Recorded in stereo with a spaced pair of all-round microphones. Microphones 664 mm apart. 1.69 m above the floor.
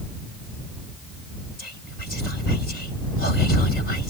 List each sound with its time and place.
1.6 s whispering: 75° left (ahead or behind)